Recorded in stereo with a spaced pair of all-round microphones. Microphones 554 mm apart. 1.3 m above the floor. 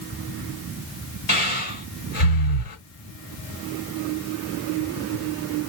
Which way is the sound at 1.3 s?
65° left (ahead or behind).